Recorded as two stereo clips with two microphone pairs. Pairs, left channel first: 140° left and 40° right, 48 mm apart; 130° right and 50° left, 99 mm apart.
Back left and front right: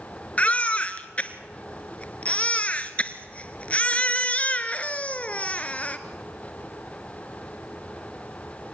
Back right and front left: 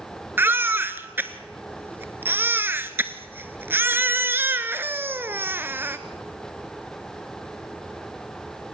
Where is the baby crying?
100° left, 1.0 m.